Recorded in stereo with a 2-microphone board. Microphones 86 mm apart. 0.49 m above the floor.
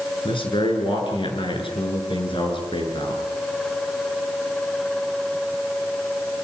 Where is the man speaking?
80° left, 7.5 m.